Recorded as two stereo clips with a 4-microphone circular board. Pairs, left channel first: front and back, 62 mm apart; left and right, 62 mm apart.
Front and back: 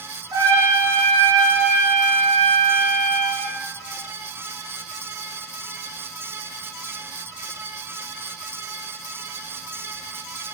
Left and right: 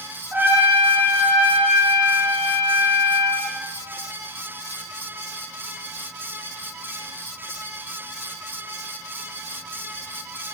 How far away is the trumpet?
About 5.5 m.